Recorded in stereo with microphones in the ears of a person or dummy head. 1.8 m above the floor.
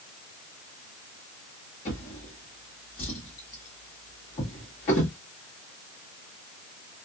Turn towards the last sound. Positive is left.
turn(degrees=25)  # may be behind; listen again after turning